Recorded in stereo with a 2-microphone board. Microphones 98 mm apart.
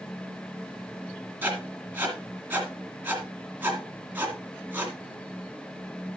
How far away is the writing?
About 2 m.